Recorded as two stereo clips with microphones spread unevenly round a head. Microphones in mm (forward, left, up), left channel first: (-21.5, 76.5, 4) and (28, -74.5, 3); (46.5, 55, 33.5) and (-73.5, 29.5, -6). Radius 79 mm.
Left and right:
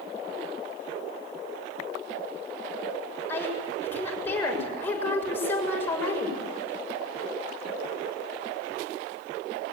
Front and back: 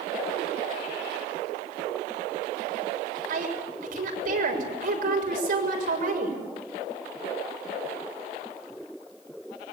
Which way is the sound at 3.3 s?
175° right.